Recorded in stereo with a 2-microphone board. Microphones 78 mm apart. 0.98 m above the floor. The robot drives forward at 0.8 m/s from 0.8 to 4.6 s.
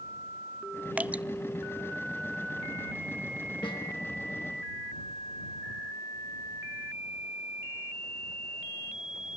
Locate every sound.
1.0 s dripping: 20° right (ahead or behind), 0.6 m
3.6 s a snare drum: 85° left, 5.5 m